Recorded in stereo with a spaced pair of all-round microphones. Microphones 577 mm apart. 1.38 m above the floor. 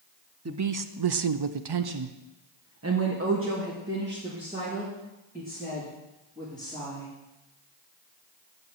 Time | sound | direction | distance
0.5 | a woman speaking | 25° right (ahead or behind) | 0.7 m